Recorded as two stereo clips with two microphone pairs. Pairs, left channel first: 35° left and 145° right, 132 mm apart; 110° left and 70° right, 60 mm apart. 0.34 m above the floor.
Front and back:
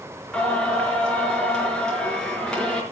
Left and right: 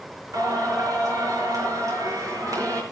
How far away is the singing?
About 5.5 m.